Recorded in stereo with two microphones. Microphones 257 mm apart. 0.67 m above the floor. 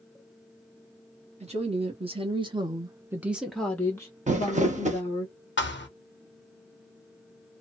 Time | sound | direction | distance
1.4 | a woman speaking | 25° right (ahead or behind) | 1.2 m
4.3 | crumpling | 30° right (ahead or behind) | 0.6 m
5.6 | a thud | 45° left (ahead or behind) | 0.7 m